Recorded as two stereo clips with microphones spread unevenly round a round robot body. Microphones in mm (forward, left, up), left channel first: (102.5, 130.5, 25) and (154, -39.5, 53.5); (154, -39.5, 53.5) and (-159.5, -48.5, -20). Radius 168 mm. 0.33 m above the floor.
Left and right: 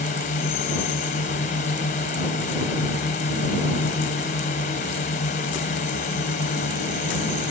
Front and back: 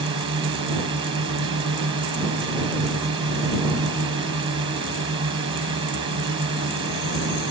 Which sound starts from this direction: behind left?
A drone, at 0.0 s.